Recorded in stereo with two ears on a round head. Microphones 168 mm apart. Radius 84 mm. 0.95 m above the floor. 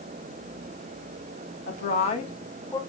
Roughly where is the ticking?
No ticking in this recording.